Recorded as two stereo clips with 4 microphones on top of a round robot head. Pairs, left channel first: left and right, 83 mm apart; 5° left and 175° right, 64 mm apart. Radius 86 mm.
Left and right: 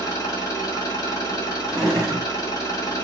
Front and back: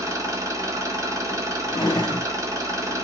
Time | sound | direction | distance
0.0 | an engine running | 150° left | 0.9 m
1.7 | a drawer | straight ahead | 0.9 m